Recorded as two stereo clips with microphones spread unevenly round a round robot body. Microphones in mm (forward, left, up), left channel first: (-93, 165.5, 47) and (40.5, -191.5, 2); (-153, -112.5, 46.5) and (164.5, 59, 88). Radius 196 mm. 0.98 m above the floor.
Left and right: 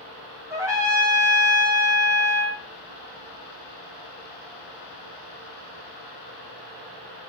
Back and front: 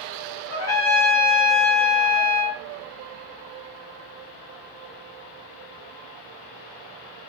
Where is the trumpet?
145° right, 1.0 m.